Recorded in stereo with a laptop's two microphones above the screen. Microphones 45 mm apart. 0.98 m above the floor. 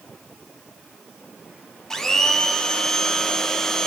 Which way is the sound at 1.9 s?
10° left (ahead or behind).